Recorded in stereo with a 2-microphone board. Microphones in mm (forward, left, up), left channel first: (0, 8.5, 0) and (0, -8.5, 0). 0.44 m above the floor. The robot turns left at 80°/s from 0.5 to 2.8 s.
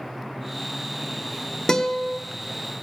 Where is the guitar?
55° left, 1.2 m; by 2.2 s 15° left, 1.2 m.